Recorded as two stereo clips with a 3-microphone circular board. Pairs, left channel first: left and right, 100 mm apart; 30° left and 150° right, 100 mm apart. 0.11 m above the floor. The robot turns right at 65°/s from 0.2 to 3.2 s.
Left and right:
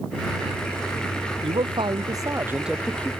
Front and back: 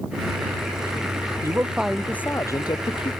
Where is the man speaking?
90° right; by 3.1 s 20° left.